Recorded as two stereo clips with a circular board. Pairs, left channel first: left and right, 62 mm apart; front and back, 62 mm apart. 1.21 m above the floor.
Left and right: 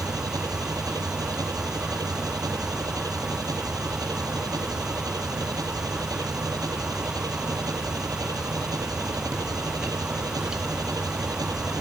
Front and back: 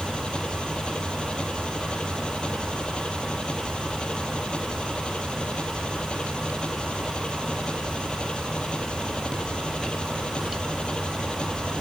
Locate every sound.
0.0 s an engine running: 75° right